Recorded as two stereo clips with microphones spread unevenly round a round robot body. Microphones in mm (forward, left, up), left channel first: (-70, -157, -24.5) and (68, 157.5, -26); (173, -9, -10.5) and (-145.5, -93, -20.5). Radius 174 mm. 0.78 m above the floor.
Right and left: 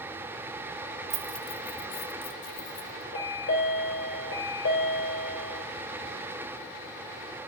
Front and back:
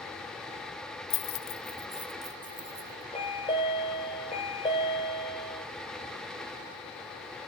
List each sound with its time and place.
1.1 s keys jangling: 10° left, 0.6 m; by 3.0 s 95° right, 2.5 m
3.1 s a chime: 60° right, 3 m